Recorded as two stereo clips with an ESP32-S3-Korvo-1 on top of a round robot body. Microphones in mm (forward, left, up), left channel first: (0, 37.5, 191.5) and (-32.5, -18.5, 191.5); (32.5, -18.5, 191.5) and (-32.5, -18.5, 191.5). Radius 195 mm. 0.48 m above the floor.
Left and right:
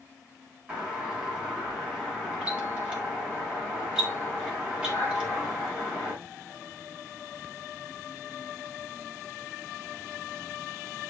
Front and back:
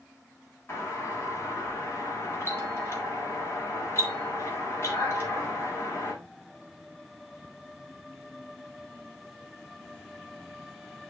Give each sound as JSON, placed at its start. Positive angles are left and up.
{"t": 0.7, "sound": "a doorbell", "azimuth_deg": -50, "distance_m": 4.5}